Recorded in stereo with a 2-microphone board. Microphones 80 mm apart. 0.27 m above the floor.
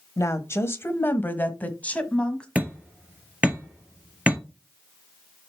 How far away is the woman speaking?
About 1.1 m.